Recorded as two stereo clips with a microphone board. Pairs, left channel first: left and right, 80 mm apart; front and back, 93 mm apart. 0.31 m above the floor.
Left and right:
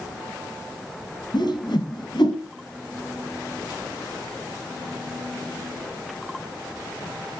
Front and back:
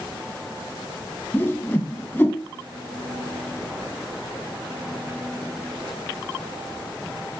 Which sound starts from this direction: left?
A whoosh, at 1.3 s.